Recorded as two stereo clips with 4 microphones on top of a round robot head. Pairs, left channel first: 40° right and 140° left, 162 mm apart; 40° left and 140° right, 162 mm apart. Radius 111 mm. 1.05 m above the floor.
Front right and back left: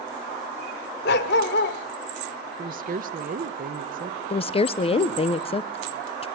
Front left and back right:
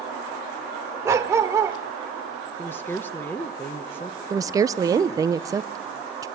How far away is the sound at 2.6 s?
About 0.9 m.